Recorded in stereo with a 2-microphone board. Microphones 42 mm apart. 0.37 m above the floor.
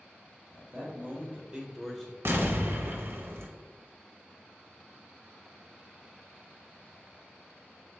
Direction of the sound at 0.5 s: 50° right (ahead or behind).